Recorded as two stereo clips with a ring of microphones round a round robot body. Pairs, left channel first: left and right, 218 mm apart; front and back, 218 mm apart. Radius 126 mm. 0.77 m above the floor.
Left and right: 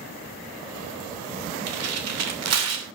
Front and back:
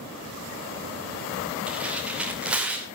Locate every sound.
1.7 s tearing paper: 95° right, 2.5 m